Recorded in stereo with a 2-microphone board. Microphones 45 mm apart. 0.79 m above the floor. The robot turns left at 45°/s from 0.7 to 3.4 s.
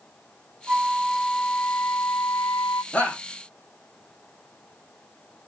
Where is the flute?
150° right, 0.7 m; by 2.8 s 115° left, 0.7 m.